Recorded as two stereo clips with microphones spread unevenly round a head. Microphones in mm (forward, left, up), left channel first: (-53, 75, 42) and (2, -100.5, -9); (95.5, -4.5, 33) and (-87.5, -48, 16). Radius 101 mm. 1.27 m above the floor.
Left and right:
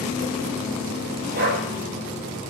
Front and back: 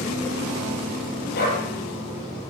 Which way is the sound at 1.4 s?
30° right.